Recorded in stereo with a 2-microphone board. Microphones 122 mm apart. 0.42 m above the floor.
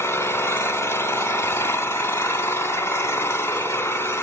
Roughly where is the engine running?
Left.